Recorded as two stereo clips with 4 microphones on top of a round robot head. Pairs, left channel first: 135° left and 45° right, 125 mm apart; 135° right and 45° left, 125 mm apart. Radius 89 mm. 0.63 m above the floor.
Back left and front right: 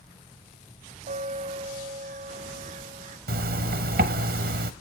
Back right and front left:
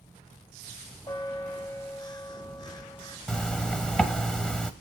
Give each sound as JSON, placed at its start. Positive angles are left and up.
{"t": 1.1, "sound": "a bell", "azimuth_deg": -75, "distance_m": 0.8}
{"t": 3.3, "sound": "a zipper", "azimuth_deg": -50, "distance_m": 0.8}